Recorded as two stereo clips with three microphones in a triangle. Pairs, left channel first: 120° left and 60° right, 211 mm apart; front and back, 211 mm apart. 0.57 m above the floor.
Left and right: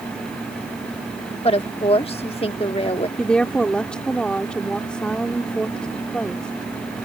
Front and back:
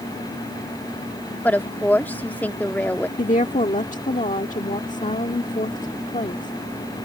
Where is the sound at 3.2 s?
35° left.